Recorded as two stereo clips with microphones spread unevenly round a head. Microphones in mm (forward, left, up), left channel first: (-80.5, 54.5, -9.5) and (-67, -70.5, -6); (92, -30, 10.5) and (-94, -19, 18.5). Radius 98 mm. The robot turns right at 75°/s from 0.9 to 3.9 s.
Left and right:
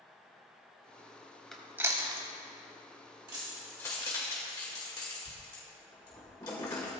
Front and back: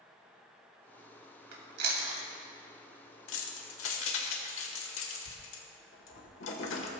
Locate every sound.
1.5 s chewing: 175° right, 2.5 m; by 2.3 s 120° right, 2.5 m
3.3 s keys jangling: 20° right, 1.7 m; by 6.9 s 25° left, 1.7 m